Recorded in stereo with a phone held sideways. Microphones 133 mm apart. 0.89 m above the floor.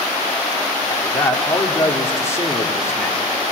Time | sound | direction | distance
0.9 | a man speaking | 20° left (ahead or behind) | 2 m